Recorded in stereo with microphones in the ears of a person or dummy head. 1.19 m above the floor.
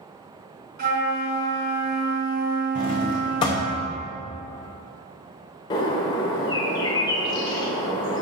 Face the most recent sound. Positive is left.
turn(degrees=25)  # may be behind; listen again after turning